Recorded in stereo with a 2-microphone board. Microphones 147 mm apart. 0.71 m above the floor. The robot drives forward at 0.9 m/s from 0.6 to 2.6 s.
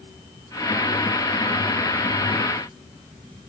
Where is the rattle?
No rattle in this recording.